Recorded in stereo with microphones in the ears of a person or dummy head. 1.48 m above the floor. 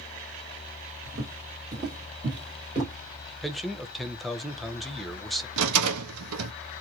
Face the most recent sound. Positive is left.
turn(degrees=-85)